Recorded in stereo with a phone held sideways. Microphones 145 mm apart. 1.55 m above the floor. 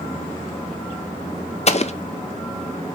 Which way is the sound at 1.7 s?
50° left (ahead or behind).